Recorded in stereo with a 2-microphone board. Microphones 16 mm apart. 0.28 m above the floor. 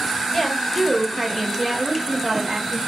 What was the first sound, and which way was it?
A woman speaking, 15° left (ahead or behind).